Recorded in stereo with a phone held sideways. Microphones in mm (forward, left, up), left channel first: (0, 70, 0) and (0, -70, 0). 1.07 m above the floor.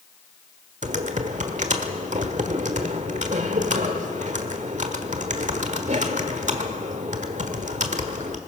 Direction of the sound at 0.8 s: 60° right (ahead or behind).